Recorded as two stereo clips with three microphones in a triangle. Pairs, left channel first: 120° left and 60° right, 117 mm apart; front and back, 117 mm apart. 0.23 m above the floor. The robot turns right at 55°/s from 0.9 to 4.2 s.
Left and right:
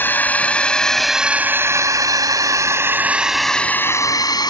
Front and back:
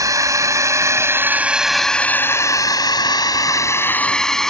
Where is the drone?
175° left; by 4.5 s 85° left.